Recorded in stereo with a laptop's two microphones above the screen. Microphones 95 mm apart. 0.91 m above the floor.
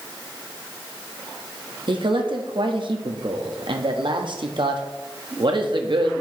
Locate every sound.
1.9 s a man speaking: 60° right (ahead or behind), 1.2 m